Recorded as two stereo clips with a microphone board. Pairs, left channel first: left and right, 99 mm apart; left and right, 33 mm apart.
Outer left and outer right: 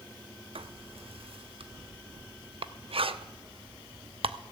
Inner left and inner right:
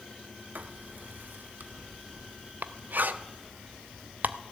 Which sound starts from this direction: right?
Writing, at 0.6 s.